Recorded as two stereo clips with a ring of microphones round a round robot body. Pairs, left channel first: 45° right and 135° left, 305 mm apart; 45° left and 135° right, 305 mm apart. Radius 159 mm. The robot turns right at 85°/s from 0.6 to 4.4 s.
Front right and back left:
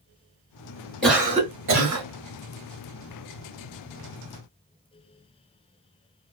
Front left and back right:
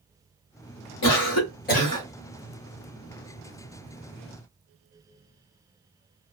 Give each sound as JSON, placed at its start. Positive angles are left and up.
{"t": 1.0, "sound": "a cough", "azimuth_deg": 40, "distance_m": 1.3}